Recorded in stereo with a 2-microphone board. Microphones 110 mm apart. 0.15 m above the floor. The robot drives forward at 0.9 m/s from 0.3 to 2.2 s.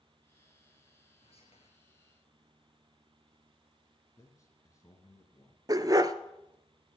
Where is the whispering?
60° left (ahead or behind), 2.5 m.